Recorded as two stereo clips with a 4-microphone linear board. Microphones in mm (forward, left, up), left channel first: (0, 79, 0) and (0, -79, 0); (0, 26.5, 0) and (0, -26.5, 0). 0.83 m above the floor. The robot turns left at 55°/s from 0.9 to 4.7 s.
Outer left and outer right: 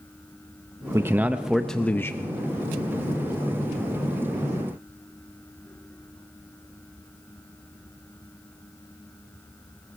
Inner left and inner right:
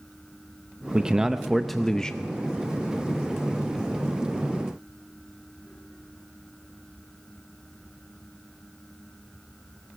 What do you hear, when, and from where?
0.9 s a man speaking: 145° right, 0.6 m; by 2.3 s 140° left, 0.6 m